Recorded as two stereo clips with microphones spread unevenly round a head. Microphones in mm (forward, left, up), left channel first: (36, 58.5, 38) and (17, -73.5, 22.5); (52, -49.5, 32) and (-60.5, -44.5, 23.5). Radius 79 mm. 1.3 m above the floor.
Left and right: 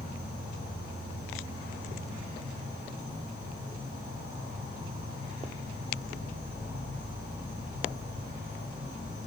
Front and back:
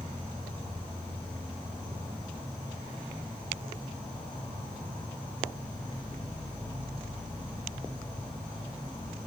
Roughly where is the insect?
Left.